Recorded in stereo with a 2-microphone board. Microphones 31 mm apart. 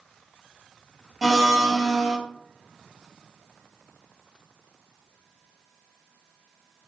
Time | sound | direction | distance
1.2 | a blender | centre (ahead or behind) | 0.8 m